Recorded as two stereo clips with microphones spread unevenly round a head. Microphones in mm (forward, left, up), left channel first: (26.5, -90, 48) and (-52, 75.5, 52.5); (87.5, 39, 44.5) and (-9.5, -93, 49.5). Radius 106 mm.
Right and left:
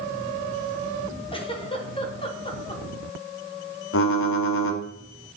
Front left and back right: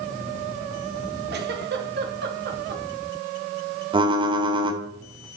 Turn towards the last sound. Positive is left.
turn(degrees=-65)